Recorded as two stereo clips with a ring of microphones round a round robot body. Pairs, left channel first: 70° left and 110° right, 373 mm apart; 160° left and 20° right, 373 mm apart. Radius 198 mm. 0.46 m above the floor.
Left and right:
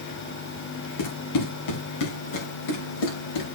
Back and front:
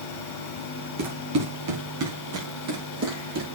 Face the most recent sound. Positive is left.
turn(degrees=35)